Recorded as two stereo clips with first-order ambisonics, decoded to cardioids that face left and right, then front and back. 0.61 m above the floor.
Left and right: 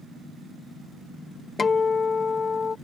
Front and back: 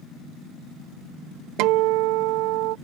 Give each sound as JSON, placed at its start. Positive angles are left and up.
{"t": 1.6, "sound": "a guitar", "azimuth_deg": 160}